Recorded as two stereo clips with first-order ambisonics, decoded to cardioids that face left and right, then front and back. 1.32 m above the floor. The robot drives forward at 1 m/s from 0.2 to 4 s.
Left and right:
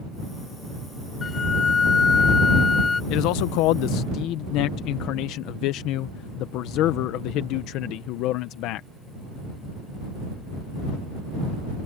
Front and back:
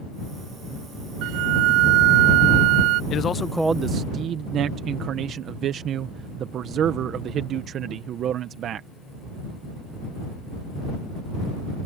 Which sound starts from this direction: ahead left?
A man speaking, at 3.1 s.